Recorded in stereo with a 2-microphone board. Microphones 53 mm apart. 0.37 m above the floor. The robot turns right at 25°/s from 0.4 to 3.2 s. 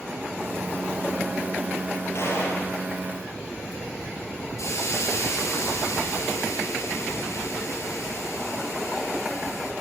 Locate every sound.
2.1 s a gunshot: 60° left (ahead or behind), 7.5 m; by 2.7 s 70° left (ahead or behind), 7.5 m
4.6 s a hiss: 70° left (ahead or behind), 4 m